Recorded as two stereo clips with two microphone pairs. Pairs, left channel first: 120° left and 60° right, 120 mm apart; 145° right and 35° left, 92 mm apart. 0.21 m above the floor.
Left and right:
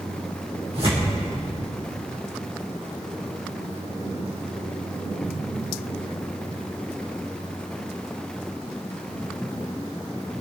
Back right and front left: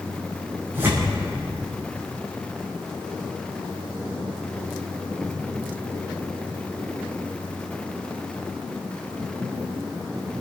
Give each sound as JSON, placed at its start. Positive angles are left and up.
{"t": 0.7, "sound": "tearing paper", "azimuth_deg": -30, "distance_m": 6.0}